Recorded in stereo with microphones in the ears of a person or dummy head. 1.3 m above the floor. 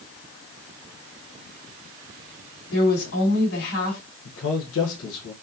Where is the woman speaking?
85° left, 3 m.